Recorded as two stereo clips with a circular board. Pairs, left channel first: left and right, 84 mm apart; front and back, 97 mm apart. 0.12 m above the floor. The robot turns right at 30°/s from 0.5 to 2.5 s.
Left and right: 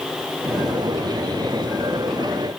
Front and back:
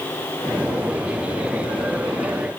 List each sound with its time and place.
Only background noise.